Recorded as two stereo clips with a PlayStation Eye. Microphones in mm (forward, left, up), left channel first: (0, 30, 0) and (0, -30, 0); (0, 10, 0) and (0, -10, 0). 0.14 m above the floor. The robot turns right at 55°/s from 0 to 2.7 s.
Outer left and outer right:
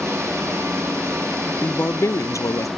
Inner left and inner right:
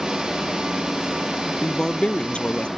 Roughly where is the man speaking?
Ahead left.